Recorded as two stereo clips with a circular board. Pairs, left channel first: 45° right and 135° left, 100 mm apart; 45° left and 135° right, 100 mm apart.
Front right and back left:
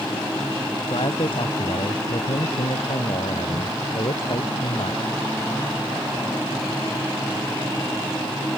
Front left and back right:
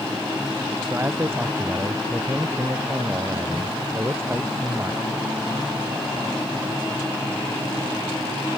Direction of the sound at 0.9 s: 70° right.